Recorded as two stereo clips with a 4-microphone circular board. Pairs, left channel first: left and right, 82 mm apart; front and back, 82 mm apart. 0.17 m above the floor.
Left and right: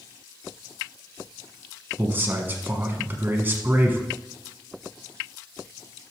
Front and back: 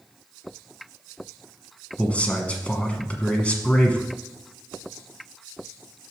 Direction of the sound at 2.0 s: 55° right.